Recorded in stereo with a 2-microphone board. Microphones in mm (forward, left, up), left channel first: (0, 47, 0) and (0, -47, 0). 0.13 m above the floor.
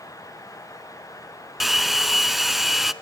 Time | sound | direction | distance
1.6 | a hair dryer | centre (ahead or behind) | 0.6 m